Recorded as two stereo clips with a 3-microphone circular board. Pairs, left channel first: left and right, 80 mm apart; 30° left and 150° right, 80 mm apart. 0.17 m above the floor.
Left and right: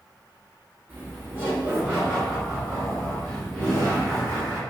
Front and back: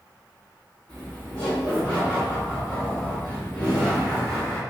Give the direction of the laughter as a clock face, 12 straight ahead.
1 o'clock.